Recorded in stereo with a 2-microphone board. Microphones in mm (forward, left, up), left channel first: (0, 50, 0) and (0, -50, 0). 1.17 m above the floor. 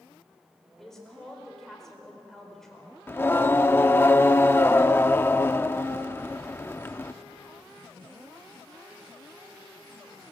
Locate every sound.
0.8 s a woman speaking: 5° left (ahead or behind), 5 m
3.1 s singing: 20° left (ahead or behind), 0.7 m